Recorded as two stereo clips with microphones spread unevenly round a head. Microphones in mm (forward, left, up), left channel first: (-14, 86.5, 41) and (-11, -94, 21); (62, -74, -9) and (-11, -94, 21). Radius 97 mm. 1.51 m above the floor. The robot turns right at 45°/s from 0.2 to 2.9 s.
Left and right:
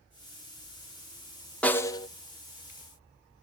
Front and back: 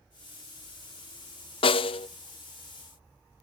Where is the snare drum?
15° left, 0.5 m; by 2.1 s 35° left, 0.5 m.